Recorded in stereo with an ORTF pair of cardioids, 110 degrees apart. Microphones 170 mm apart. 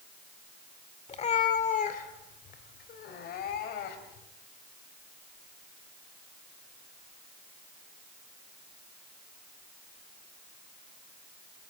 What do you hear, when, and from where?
1.1 s a cat meowing: 40° left, 2 m; by 4.3 s 75° left, 4 m